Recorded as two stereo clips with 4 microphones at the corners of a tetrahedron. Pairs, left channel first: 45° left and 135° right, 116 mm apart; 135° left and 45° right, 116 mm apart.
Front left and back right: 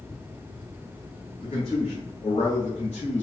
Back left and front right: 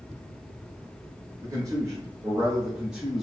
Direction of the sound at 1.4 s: 10° left.